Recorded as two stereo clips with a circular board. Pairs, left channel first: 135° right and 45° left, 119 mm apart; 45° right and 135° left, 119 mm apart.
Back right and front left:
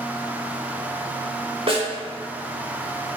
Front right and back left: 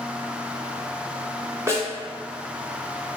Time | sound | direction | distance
1.7 | a snare drum | 70° left | 1.2 m